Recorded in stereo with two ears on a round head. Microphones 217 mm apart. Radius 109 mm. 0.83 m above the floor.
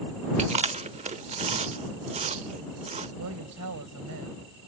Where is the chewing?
30° right (ahead or behind).